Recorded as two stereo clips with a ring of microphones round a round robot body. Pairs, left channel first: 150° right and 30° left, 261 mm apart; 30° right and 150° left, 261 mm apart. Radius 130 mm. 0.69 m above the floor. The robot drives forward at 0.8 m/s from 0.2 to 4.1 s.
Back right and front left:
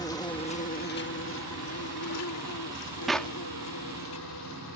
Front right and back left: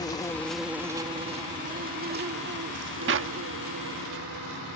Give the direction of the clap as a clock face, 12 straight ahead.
8 o'clock.